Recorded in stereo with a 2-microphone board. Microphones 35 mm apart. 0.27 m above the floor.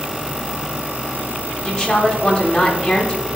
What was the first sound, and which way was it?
A woman speaking, 15° left (ahead or behind).